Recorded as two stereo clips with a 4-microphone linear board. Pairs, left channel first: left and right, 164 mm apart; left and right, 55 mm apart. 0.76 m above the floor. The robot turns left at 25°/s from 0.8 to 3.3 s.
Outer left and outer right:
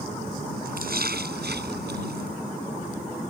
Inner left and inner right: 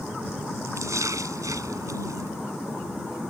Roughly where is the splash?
Ahead right.